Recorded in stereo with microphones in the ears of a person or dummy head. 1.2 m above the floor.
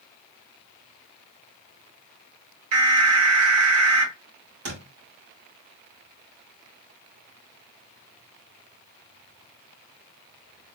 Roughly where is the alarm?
Right.